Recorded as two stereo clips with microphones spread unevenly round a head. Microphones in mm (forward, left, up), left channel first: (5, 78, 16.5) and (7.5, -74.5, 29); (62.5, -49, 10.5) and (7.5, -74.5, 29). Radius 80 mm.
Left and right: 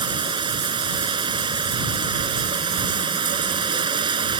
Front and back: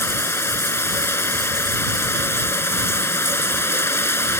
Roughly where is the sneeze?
No sneeze in this recording.